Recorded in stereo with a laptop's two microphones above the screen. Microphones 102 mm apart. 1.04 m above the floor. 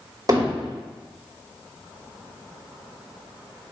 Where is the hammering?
40° right (ahead or behind), 2 m.